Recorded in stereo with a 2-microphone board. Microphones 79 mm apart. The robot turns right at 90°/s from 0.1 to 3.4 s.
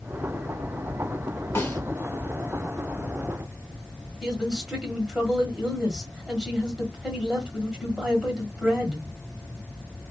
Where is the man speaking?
10° right (ahead or behind), 1.3 m.